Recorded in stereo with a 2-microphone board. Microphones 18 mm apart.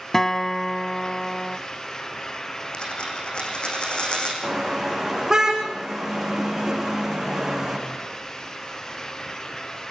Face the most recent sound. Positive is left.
turn(degrees=-30)  # may be behind; listen again after turning